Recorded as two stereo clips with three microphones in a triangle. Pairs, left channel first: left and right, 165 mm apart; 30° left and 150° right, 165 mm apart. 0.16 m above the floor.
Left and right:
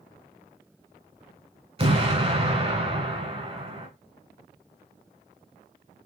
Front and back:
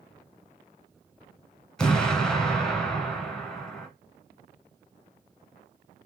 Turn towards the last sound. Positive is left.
turn(degrees=-55)